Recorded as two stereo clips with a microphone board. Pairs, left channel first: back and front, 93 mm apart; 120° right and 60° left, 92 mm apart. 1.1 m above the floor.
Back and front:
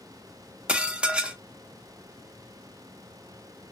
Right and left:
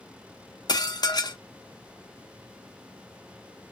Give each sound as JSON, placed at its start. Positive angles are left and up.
{"t": 0.7, "sound": "dishes clattering", "azimuth_deg": -80, "distance_m": 0.5}